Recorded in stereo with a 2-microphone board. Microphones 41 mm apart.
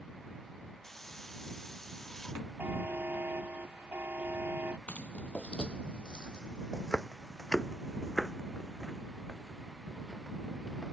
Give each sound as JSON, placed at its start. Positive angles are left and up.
{"t": 0.8, "sound": "a hiss", "side_deg": 10}
{"t": 2.6, "sound": "a buzzer", "side_deg": -50}
{"t": 4.9, "sound": "footsteps", "side_deg": 40}